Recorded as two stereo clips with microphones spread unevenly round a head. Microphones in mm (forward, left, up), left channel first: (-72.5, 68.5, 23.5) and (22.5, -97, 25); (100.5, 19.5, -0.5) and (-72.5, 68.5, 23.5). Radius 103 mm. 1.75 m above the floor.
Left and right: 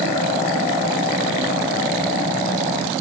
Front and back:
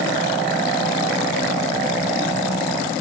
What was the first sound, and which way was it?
Only background noise.